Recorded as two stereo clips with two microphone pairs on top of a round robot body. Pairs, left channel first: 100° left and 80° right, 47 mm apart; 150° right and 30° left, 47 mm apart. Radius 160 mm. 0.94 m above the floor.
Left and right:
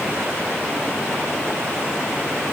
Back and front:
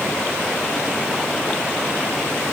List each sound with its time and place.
Only background noise.